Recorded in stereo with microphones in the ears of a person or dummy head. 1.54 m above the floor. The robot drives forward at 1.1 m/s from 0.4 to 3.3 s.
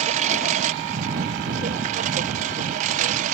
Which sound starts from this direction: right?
A lawn mower, at 0.0 s.